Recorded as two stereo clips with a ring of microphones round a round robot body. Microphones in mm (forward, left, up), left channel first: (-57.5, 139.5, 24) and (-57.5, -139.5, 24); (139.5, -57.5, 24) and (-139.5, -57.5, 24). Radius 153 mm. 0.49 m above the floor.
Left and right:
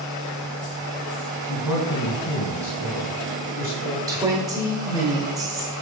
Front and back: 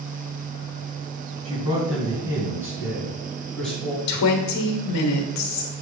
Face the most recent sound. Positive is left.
turn(degrees=-15)